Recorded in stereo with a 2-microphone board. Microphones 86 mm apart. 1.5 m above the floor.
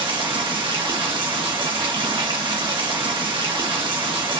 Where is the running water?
75° right (ahead or behind), 1.7 m.